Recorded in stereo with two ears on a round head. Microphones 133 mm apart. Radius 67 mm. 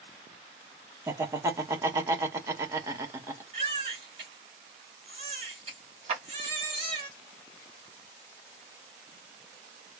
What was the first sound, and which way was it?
Laughter, 20° right (ahead or behind).